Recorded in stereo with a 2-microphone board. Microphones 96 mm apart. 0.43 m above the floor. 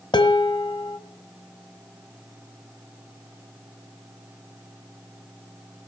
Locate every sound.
0.1 s dishes clattering: 50° left (ahead or behind), 1.6 m